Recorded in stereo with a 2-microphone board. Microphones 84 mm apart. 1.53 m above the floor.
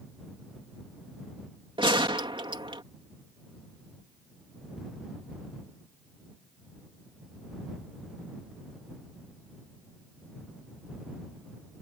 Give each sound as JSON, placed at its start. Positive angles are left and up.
{"t": 1.8, "sound": "a gunshot", "side_deg": -70}